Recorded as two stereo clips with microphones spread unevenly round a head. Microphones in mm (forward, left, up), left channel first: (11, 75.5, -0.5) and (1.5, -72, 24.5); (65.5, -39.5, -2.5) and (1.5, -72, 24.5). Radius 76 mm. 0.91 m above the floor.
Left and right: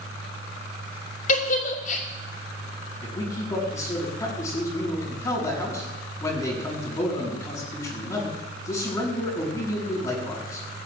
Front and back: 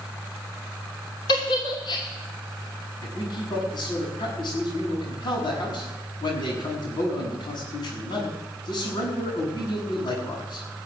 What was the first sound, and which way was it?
A giggle, 55° left.